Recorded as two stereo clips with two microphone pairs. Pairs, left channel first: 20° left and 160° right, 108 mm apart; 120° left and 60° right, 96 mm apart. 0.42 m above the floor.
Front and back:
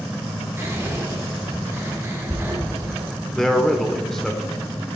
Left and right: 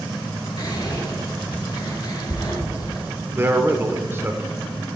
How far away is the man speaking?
About 0.8 m.